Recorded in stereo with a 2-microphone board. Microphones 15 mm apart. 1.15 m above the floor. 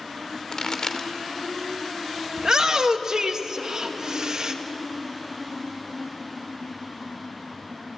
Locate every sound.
0.5 s a pop: 45° left (ahead or behind), 1.9 m
2.4 s a shout: 45° right (ahead or behind), 1.8 m